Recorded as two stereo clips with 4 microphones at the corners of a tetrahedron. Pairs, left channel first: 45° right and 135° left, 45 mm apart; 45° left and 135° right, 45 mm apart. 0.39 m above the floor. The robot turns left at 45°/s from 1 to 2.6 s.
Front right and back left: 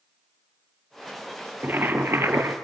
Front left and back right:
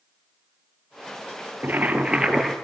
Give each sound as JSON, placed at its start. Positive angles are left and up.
{"t": 1.6, "sound": "boiling", "azimuth_deg": 180, "distance_m": 2.0}